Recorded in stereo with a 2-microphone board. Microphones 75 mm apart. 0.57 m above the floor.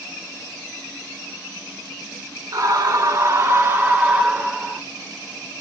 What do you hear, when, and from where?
2.5 s a scream: 55° right (ahead or behind), 2.0 m; by 4.8 s 10° right (ahead or behind), 2.5 m